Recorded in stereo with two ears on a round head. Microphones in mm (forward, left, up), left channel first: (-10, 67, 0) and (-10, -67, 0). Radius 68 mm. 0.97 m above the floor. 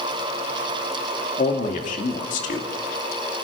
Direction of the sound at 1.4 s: 50° left (ahead or behind).